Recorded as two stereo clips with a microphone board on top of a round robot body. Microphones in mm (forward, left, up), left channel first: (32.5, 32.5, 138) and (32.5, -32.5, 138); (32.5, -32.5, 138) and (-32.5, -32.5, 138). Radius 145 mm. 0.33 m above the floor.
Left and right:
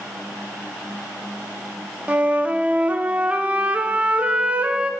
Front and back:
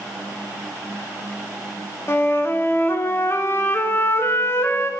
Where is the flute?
30° right, 0.8 m.